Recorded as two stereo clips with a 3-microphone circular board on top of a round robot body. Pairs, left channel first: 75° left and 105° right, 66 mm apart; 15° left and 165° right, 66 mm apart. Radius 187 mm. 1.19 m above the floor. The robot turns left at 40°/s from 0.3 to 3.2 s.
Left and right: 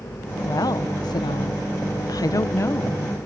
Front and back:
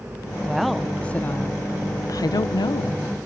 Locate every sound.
0.4 s a woman speaking: 115° left; by 3.0 s 10° left